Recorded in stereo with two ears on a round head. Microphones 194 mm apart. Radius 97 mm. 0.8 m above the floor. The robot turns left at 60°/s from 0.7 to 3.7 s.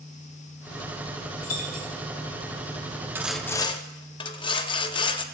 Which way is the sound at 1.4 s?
45° left (ahead or behind).